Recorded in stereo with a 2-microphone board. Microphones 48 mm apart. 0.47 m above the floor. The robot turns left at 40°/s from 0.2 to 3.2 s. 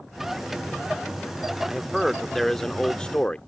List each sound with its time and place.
1.6 s a man speaking: 165° right; by 3.4 s 135° left